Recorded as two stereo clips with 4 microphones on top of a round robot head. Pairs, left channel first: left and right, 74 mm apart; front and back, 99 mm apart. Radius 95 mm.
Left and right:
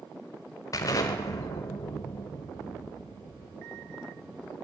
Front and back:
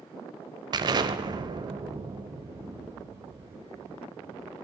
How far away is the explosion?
About 0.8 m.